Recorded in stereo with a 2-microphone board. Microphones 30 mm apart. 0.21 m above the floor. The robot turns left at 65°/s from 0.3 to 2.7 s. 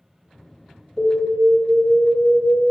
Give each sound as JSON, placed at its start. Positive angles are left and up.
{"t": 1.0, "sound": "an alarm", "azimuth_deg": 165, "distance_m": 0.9}